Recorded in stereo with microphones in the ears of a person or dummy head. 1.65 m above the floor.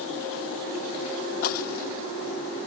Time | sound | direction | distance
1.4 | breaking glass | 55° left (ahead or behind) | ?